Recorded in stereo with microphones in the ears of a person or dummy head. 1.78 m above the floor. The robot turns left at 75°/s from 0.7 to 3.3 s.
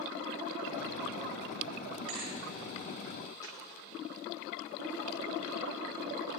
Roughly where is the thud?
Right.